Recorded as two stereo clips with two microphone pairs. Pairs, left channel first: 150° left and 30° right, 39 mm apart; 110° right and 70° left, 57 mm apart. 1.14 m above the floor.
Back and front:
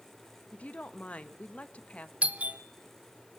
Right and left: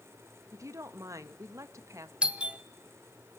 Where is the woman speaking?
95° left, 1.2 m.